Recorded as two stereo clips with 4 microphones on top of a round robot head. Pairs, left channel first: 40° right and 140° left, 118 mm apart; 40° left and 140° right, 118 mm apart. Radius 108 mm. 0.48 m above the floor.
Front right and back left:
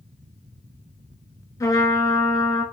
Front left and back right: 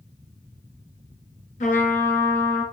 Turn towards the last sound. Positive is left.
turn(degrees=25)